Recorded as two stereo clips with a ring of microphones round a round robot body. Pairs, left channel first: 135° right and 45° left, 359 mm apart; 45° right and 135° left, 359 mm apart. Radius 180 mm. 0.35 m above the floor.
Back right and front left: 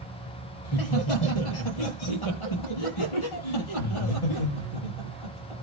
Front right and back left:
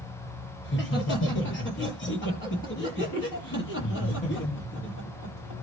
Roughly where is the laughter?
Right.